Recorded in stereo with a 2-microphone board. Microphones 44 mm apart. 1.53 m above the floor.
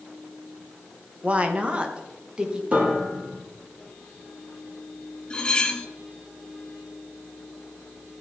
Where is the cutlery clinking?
20° left (ahead or behind), 1.0 m.